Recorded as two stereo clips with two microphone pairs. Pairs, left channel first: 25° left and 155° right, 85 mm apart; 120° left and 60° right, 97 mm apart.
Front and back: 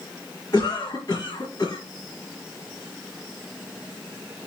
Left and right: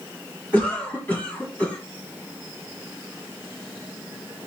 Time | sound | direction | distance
0.5 | a cough | 50° left | 1.7 m